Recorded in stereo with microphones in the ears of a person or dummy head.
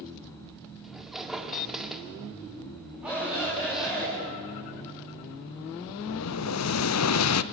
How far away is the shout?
About 8.5 m.